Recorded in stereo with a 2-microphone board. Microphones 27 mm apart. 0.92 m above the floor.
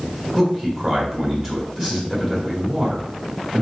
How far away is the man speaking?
About 1.7 m.